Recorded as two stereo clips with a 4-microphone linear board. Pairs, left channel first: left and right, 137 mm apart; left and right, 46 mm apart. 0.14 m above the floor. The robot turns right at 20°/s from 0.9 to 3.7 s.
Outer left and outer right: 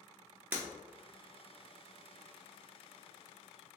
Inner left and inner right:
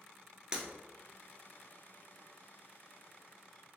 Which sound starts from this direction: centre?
Breaking glass, at 0.5 s.